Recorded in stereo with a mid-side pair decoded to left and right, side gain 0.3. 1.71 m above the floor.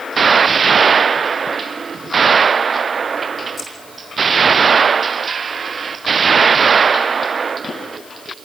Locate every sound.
3.6 s keys jangling: 45° left, 6.5 m